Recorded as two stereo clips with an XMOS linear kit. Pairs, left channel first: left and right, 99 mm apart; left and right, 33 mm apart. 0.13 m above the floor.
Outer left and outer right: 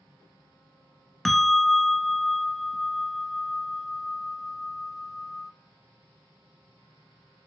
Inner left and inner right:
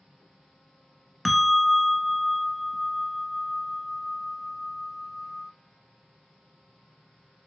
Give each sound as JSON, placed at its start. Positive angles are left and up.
{"t": 1.2, "sound": "a bell", "side_deg": 0, "distance_m": 0.5}